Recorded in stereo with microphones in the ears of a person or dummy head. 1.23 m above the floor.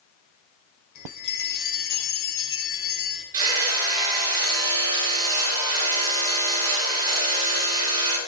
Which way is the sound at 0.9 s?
65° left (ahead or behind).